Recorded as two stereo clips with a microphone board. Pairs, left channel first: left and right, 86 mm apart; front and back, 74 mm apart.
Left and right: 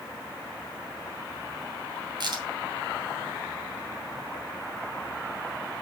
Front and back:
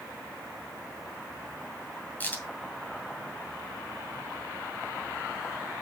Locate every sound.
2.2 s a crack: 65° right, 2.5 m